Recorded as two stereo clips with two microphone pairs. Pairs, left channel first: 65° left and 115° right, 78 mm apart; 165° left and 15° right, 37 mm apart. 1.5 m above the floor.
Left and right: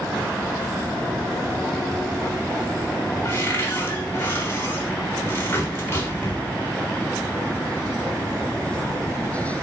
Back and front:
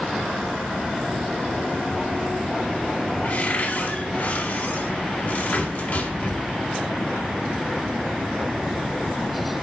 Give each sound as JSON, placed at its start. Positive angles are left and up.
{"t": 3.2, "sound": "a cupboard door", "azimuth_deg": 125, "distance_m": 3.5}